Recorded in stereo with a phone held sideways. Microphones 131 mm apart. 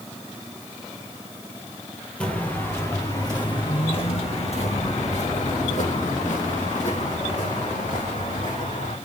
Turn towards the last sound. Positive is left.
turn(degrees=75)  # may be behind; listen again after turning